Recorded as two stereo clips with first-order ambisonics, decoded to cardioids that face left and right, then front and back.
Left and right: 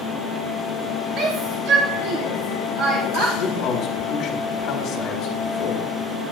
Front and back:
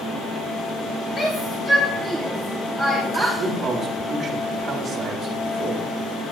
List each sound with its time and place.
1.2 s a shout: 60° right, 0.9 m; by 3.3 s 100° right, 1.8 m
3.4 s a man speaking: 115° left, 1.4 m